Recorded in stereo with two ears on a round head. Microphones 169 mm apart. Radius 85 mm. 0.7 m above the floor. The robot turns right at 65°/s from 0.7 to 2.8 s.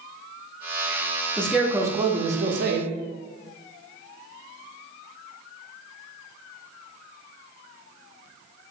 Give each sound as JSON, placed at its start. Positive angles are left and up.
{"t": 1.4, "sound": "a man speaking", "azimuth_deg": 170, "distance_m": 0.7}